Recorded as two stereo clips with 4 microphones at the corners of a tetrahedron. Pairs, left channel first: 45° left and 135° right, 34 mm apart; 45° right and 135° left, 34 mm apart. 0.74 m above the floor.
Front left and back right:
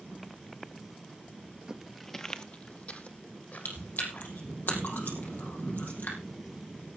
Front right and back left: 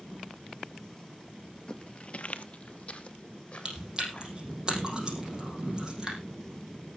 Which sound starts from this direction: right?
Footsteps, at 1.7 s.